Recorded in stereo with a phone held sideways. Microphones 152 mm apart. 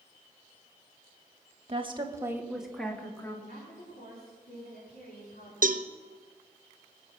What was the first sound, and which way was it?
A woman speaking, 40° right (ahead or behind).